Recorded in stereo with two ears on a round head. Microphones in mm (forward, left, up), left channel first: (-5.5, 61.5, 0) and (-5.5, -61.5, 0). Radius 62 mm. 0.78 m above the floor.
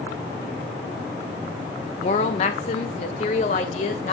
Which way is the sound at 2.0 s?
50° left (ahead or behind).